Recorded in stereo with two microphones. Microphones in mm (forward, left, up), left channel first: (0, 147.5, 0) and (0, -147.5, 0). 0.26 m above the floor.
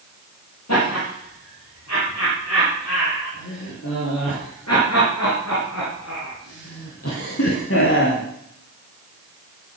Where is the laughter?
60° left (ahead or behind), 8.5 m; by 8.2 s 40° left (ahead or behind), 1.9 m.